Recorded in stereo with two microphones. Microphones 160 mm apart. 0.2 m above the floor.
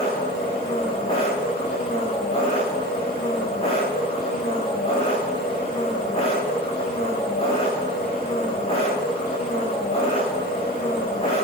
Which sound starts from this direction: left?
An engine running, at 0.0 s.